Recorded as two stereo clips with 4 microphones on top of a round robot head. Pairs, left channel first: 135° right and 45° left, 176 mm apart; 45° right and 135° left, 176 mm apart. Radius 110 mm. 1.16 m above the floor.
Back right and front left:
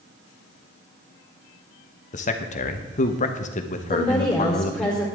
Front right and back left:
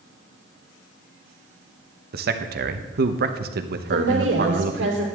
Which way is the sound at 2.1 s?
175° left.